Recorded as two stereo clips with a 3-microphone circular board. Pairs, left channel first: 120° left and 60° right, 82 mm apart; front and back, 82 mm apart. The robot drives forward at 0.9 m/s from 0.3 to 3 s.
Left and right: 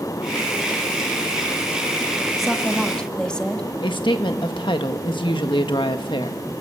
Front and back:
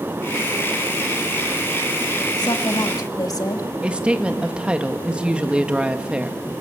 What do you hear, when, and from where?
2.4 s a woman speaking: 30° left, 2 m; by 3.6 s 40° left, 1.6 m
3.8 s a woman speaking: 105° left, 1.6 m